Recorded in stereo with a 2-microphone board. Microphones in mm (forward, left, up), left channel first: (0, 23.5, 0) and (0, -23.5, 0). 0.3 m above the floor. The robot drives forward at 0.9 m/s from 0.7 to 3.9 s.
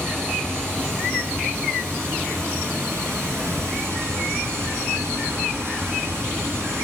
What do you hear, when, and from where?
0.0 s running water: 55° right (ahead or behind), 4.5 m; by 6.8 s 75° right (ahead or behind), 4 m